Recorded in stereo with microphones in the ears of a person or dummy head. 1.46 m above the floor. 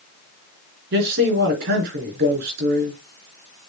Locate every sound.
0.9 s a man speaking: 60° right (ahead or behind), 4.5 m